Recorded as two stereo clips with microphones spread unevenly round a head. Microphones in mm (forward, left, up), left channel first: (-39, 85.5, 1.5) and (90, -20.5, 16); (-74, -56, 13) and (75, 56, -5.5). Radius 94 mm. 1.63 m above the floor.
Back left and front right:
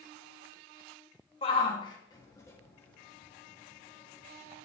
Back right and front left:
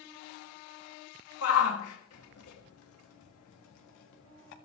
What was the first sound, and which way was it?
A shout, 155° right.